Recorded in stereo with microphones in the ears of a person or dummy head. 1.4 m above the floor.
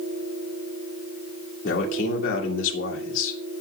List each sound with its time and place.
1.6 s a man speaking: 75° left (ahead or behind), 2.0 m